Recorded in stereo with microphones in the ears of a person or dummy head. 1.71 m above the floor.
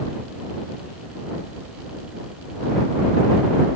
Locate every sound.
Only background noise.